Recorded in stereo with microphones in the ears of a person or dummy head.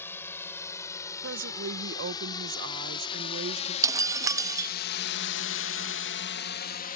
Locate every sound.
0.0 s a drone: 15° left (ahead or behind); by 7.0 s 40° left (ahead or behind)
1.2 s a woman speaking: 60° right (ahead or behind)
3.8 s breaking glass: 15° right (ahead or behind)